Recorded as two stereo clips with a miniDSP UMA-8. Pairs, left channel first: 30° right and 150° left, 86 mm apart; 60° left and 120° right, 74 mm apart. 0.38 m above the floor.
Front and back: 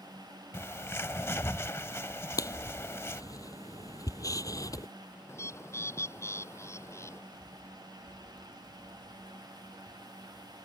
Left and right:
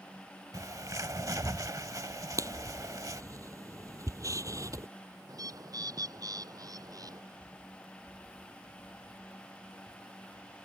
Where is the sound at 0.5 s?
90° right.